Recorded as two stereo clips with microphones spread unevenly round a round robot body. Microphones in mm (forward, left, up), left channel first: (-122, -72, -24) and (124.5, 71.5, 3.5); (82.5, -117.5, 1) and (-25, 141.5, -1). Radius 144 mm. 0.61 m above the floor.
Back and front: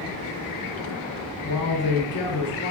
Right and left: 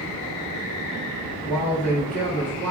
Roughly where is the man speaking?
Behind right.